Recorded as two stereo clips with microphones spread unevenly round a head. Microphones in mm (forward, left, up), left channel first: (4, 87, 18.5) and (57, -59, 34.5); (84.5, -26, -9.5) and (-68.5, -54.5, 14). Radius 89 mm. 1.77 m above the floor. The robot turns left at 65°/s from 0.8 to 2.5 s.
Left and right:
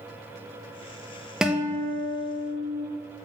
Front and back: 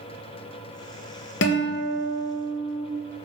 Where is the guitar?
15° left, 0.7 m; by 2.9 s 55° right, 0.7 m.